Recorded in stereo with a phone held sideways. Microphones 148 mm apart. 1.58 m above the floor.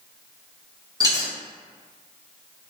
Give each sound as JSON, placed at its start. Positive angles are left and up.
{"t": 1.0, "sound": "a dropped coin", "side_deg": -25, "distance_m": 0.9}